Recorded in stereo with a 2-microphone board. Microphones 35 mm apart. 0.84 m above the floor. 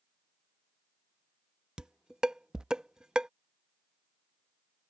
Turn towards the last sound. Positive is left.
turn(degrees=-25)  # may be behind; listen again after turning